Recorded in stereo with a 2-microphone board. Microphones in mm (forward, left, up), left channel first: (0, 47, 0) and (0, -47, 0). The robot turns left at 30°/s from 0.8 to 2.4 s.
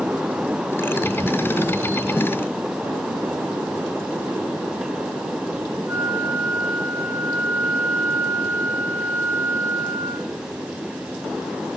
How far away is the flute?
About 4 m.